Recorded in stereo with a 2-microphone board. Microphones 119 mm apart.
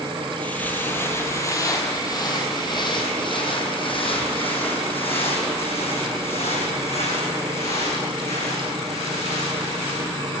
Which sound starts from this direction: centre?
Footsteps, at 0.4 s.